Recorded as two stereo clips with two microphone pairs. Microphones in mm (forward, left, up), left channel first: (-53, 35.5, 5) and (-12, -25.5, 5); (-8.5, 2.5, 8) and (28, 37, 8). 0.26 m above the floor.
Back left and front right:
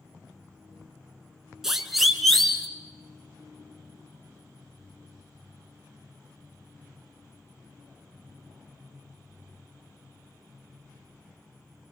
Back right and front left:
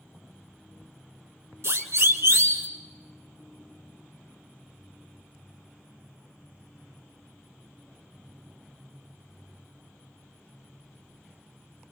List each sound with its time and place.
1.6 s a siren: 30° left, 2.5 m; by 2.7 s 40° left, 3 m